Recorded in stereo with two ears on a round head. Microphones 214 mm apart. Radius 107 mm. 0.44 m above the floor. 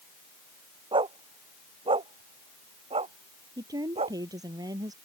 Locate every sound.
0.9 s a dog barking: 20° right (ahead or behind); by 4.2 s 25° right (ahead or behind)
3.6 s a woman speaking: 15° right (ahead or behind)